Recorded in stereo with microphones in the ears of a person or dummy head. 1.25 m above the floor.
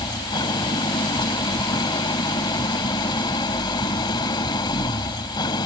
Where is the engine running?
25° left (ahead or behind).